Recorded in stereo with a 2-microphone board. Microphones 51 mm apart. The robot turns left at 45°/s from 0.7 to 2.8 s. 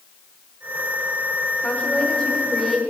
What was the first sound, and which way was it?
A woman speaking, 55° left.